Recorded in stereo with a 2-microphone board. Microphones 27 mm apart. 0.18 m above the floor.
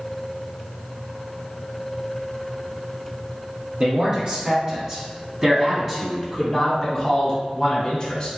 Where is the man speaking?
45° right (ahead or behind), 2.0 m; by 8.3 s 30° left (ahead or behind), 1.7 m.